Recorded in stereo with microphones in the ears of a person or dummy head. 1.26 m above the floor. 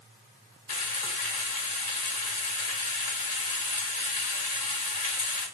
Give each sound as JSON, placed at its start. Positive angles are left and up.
{"t": 0.7, "sound": "frying", "side_deg": 45, "distance_m": 1.4}